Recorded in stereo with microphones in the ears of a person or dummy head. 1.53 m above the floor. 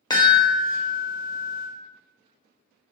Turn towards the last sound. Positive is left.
turn(degrees=20)  # may be behind; listen again after turning